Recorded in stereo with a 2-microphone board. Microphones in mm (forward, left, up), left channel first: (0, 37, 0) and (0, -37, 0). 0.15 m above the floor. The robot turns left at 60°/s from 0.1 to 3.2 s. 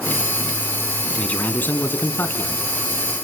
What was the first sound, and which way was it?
A man speaking, 15° left (ahead or behind).